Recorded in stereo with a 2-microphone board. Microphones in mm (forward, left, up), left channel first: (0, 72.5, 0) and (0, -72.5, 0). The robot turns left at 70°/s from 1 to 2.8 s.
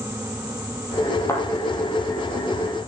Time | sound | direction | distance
1.3 | a thud | 20° left (ahead or behind) | 2.5 m